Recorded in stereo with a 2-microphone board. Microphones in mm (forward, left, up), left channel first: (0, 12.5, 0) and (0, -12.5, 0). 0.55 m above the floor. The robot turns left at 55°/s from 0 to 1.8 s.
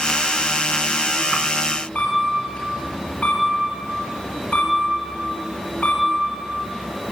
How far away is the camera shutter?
About 3 m.